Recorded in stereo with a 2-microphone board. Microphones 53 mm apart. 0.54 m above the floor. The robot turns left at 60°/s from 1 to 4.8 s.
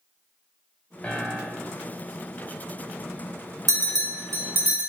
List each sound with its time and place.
1.0 s a piano: 20° left, 1.1 m; by 1.9 s 25° right, 1.1 m
3.7 s a bell: 85° right, 1.4 m; by 4.9 s 25° right (ahead or behind), 1.4 m